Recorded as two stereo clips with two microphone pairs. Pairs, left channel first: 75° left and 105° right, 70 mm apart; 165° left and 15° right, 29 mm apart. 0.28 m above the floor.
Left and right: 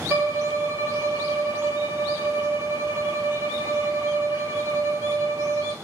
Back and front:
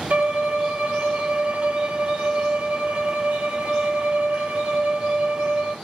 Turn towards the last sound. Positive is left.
turn(degrees=-50)